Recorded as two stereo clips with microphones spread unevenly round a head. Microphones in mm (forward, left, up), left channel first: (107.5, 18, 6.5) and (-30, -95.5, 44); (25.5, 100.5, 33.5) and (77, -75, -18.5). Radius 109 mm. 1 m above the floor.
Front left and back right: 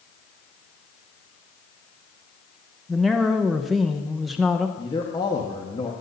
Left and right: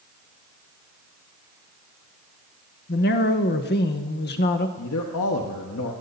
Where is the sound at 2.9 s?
110° left, 0.9 m.